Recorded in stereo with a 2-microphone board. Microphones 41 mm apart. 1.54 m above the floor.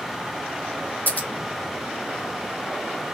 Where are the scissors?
45° left (ahead or behind), 0.9 m.